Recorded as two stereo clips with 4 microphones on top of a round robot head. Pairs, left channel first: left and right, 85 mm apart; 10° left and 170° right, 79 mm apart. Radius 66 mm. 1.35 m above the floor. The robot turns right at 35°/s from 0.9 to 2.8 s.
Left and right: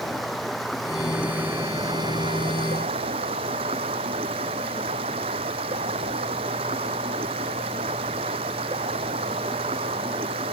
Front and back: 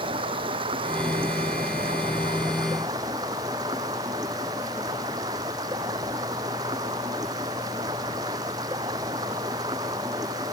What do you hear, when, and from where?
0.0 s running water: straight behind; by 10.5 s 115° right